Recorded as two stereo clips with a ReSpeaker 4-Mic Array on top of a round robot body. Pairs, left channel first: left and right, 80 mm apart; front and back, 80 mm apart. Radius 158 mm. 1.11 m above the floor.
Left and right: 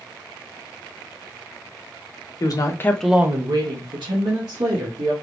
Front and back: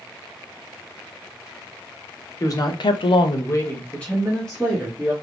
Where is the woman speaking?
45° left, 1.0 m; by 5.1 s 90° right, 2 m.